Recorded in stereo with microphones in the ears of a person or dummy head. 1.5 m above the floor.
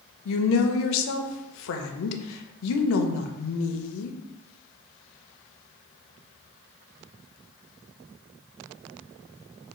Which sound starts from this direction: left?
A woman speaking, at 0.2 s.